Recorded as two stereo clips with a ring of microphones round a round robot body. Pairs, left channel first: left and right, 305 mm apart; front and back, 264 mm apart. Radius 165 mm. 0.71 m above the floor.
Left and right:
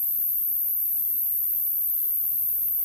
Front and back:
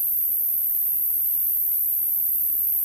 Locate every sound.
0.0 s an insect: 90° left, 1.2 m